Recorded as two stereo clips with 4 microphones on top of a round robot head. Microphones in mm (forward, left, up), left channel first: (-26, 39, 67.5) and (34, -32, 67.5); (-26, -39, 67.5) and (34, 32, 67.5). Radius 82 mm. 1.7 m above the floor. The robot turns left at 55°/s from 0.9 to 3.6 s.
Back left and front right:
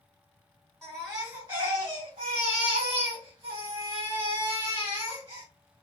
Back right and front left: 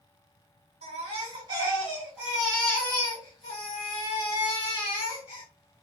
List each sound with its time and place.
0.8 s a baby crying: 45° left, 2 m; by 5.4 s 100° right, 2 m